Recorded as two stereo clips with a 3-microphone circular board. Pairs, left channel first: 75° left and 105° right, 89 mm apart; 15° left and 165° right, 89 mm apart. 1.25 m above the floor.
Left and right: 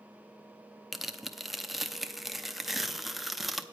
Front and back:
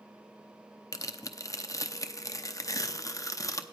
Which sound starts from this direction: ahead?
Tearing paper, at 0.9 s.